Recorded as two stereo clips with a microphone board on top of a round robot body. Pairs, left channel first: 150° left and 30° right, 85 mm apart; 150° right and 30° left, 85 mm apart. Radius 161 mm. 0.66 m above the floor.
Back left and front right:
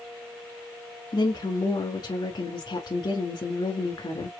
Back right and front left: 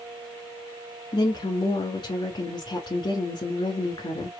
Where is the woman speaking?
Straight behind, 2 m.